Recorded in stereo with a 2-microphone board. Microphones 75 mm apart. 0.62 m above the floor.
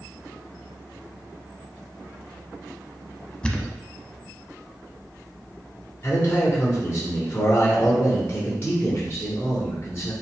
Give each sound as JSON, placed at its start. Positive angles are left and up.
{"t": 3.4, "sound": "a thud", "side_deg": 10, "distance_m": 0.6}
{"t": 6.0, "sound": "a man speaking", "side_deg": 35, "distance_m": 1.6}